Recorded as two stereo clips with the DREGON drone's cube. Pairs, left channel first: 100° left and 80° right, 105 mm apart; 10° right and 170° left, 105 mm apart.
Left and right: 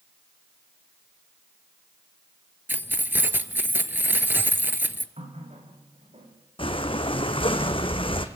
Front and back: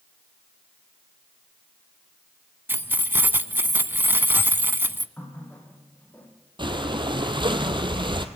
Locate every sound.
2.7 s keys jangling: 135° right, 0.8 m
5.2 s a running tap: 80° right, 4 m
6.6 s breathing: 130° left, 1.5 m